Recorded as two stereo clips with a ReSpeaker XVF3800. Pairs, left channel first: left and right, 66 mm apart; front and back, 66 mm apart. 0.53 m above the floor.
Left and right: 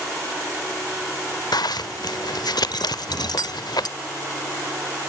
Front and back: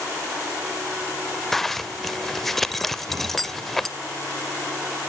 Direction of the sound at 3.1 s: 135° left.